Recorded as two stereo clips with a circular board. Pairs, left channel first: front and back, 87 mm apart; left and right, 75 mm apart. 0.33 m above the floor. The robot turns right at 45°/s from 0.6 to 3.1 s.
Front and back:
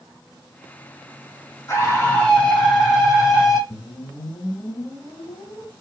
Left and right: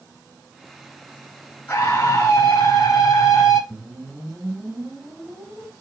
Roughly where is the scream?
Ahead left.